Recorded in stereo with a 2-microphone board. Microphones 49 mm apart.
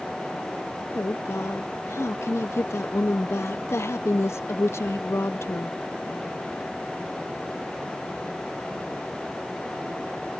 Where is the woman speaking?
70° left (ahead or behind).